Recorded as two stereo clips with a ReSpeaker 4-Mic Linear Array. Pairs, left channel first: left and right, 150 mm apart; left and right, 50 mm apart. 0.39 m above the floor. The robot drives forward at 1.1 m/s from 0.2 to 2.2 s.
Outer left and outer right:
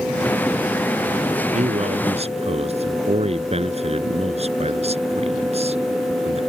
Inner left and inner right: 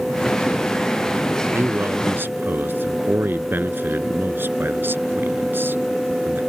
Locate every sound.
1.5 s a man speaking: 50° right (ahead or behind); by 6.4 s 45° right (ahead or behind)